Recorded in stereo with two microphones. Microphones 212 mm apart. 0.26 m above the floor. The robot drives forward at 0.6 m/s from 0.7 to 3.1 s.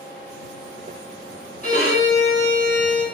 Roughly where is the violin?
Left.